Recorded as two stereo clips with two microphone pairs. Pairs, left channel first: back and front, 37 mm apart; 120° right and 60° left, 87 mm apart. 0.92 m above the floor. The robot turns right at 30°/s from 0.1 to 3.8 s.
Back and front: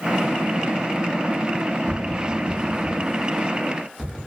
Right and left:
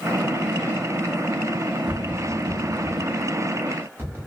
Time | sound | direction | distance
1.9 | tapping | straight ahead | 0.8 m